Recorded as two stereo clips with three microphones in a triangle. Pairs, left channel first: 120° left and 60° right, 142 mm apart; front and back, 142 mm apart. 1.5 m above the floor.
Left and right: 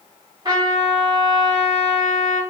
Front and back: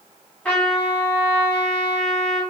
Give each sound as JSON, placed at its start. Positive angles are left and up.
{"t": 0.5, "sound": "a trumpet", "azimuth_deg": -75, "distance_m": 1.6}